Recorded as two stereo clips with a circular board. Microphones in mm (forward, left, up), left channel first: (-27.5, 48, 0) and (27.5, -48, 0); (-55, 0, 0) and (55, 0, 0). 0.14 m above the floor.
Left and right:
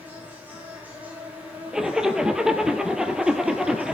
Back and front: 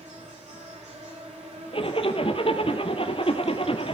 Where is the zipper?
145° right, 1.6 m.